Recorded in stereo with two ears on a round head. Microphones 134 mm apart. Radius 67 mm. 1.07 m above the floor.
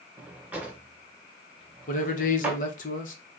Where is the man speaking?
55° left (ahead or behind), 1.0 m.